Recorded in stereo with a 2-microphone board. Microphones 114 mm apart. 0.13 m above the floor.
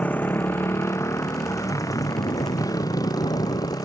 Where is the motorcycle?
15° left (ahead or behind); by 3.9 s 35° left (ahead or behind).